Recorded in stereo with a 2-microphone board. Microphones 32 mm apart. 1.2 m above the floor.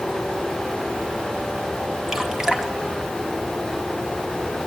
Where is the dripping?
10° right (ahead or behind), 2 m.